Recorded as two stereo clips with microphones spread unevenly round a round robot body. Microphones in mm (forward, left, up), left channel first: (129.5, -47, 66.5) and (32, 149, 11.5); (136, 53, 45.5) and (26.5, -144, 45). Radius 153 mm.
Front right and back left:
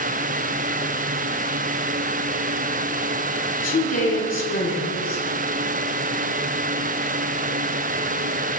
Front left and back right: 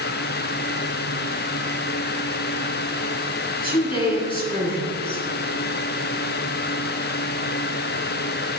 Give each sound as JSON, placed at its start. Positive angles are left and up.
{"t": 3.6, "sound": "a woman speaking", "azimuth_deg": -10, "distance_m": 5.0}